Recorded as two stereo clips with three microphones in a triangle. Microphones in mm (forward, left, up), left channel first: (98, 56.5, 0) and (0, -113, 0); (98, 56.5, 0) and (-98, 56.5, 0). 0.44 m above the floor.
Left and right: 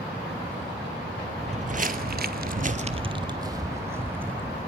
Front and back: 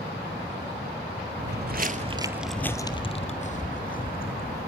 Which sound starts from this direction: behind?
Footsteps, at 1.4 s.